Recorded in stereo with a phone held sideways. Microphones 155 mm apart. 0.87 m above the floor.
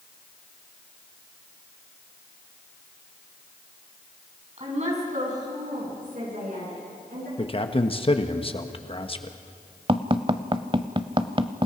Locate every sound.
4.6 s a woman speaking: 45° right (ahead or behind), 5.5 m; by 7.3 s 60° right (ahead or behind), 9 m
7.4 s a man speaking: 35° left (ahead or behind), 1.2 m
9.9 s tapping: 35° right (ahead or behind), 0.7 m